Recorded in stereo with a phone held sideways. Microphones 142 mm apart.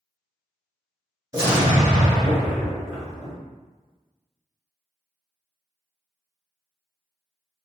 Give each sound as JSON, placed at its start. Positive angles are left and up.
{"t": 1.3, "sound": "an explosion", "side_deg": -25, "distance_m": 1.5}